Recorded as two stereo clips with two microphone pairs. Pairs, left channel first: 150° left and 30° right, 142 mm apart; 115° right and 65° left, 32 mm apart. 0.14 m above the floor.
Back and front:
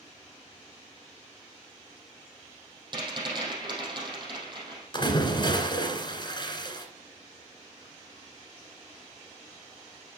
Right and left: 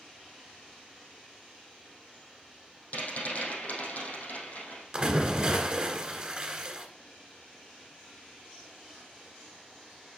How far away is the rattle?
About 4 m.